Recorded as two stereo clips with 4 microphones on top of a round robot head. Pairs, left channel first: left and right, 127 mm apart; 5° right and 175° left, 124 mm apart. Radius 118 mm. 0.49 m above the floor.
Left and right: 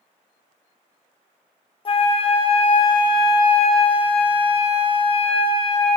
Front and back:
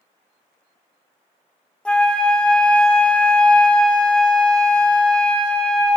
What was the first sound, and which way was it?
A flute, 75° left.